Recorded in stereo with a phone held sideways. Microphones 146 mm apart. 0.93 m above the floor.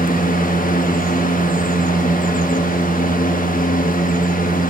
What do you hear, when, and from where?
0.0 s a fan: 70° left (ahead or behind), 1.0 m